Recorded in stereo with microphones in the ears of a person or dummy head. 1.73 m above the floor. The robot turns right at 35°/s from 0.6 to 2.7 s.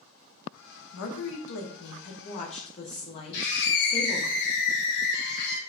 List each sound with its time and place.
0.9 s a woman speaking: 85° left, 0.6 m; by 4.3 s 145° left, 0.6 m
3.3 s a scream: 60° left (ahead or behind), 1.0 m